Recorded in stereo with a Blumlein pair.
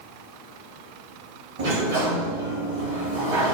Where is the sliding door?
55° right, 1.5 m.